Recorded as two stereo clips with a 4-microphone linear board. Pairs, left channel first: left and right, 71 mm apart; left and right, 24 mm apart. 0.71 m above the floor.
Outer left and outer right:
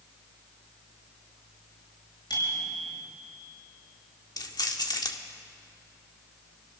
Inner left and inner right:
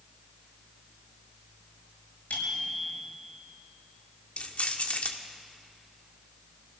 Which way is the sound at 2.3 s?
90° left.